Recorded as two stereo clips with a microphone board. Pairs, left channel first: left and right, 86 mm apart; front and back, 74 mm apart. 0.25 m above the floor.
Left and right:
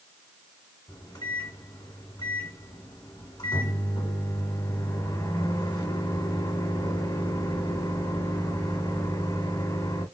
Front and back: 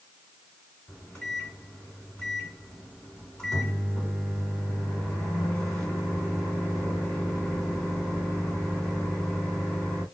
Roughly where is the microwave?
Left.